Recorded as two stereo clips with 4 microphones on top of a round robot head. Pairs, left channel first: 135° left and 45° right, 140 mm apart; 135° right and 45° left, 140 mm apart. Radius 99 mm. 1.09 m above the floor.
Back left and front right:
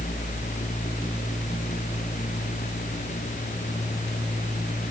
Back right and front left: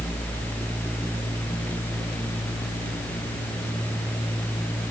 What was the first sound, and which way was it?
Only background noise.